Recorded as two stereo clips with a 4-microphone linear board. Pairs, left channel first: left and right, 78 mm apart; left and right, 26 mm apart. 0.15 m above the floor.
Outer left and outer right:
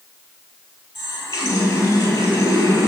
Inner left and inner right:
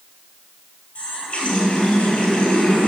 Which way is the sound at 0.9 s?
40° left (ahead or behind).